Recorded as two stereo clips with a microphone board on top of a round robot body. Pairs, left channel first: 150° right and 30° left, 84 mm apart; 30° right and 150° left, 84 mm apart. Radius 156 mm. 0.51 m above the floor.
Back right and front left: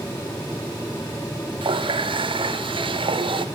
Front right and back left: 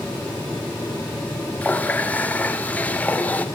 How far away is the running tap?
About 1.3 m.